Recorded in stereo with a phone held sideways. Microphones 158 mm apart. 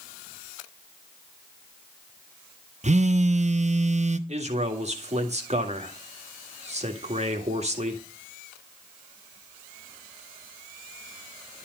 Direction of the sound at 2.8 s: 50° right (ahead or behind).